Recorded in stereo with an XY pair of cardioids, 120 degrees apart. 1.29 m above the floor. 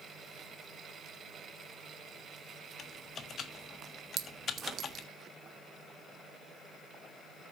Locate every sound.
2.8 s typing on a keyboard: 45° left, 1.4 m
4.2 s a clink: 60° right, 1.3 m